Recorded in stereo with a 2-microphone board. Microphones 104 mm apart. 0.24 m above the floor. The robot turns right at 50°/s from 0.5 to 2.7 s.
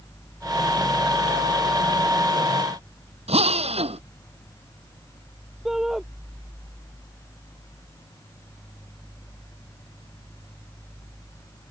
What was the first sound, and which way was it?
A drill, 85° right.